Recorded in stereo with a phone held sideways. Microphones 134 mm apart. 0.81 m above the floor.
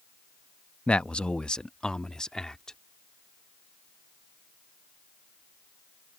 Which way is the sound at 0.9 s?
10° left (ahead or behind).